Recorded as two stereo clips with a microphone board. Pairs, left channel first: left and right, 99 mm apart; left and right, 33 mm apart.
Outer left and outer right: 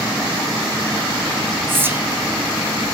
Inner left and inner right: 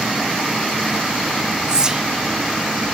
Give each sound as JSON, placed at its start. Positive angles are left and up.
{"t": 1.7, "sound": "whispering", "side_deg": -20, "distance_m": 0.9}